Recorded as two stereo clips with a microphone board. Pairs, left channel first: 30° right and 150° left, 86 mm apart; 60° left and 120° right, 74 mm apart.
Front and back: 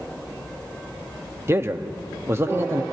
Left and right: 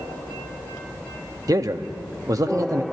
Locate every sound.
1.5 s a man speaking: 155° right, 0.8 m